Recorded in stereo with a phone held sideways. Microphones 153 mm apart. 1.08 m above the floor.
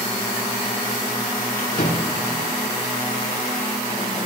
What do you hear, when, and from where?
1.6 s a drawer: 80° left, 8.5 m